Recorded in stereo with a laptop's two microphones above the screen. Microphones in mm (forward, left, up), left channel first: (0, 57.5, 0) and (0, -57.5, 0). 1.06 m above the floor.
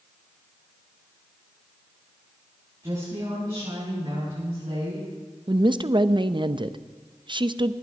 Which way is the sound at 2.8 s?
40° right (ahead or behind).